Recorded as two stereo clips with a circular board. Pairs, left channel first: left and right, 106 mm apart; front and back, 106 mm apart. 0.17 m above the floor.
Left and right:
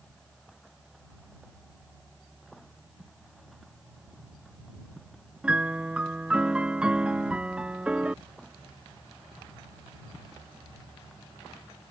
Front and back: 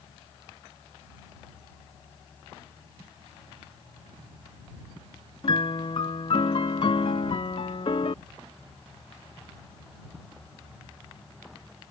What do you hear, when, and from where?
5.4 s a piano: 10° right